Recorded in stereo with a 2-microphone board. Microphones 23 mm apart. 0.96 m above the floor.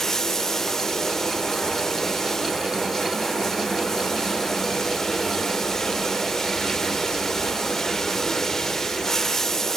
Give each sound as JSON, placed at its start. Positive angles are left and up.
{"t": 0.0, "sound": "running water", "side_deg": 20, "distance_m": 2.0}